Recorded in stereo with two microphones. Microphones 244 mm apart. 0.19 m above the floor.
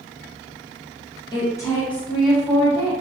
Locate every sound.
1.3 s a woman speaking: 20° left (ahead or behind), 1.6 m; by 2.9 s 15° right (ahead or behind), 1.6 m